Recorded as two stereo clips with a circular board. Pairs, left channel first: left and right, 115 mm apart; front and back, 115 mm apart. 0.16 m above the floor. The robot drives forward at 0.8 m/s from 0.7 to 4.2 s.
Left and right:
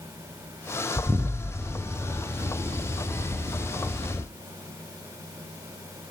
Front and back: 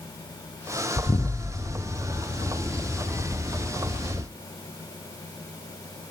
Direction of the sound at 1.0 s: 30° right.